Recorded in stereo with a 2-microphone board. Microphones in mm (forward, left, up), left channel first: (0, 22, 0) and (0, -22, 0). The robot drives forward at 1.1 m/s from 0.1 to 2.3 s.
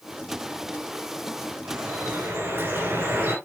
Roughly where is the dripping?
Right.